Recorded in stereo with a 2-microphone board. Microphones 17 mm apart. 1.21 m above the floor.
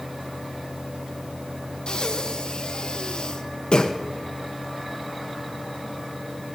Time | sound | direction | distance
1.9 | breathing | 65° left (ahead or behind) | 0.9 m